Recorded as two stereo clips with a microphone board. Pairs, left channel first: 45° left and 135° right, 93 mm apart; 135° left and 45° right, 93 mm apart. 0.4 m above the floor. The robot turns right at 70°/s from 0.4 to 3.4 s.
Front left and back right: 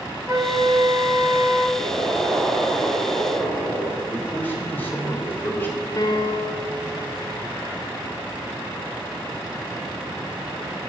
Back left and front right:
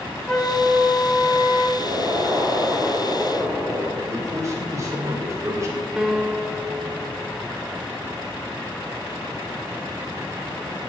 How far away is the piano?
About 0.8 m.